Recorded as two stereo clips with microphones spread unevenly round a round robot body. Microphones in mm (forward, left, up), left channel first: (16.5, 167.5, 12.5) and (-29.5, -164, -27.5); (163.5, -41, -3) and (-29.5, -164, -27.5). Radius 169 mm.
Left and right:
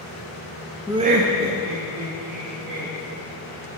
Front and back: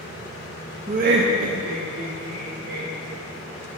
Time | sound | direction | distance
0.9 | laughter | 170° right | 0.6 m